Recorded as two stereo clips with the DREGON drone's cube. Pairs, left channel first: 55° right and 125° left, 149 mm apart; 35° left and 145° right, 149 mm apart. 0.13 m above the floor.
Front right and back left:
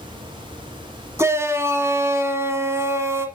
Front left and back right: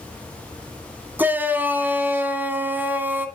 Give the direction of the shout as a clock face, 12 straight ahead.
7 o'clock.